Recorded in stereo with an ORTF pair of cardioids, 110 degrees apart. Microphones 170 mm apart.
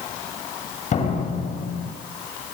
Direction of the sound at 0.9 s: 45° left.